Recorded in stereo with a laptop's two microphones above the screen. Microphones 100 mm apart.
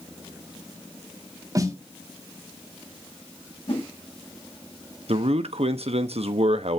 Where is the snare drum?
35° right (ahead or behind), 2.5 m.